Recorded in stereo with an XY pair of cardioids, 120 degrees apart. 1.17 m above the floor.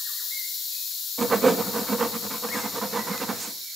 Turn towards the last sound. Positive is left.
turn(degrees=-25)